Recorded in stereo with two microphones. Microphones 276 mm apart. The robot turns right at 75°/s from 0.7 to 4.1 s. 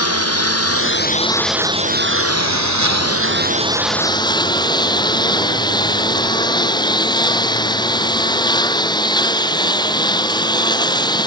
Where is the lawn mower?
120° left; by 11.3 s 15° left.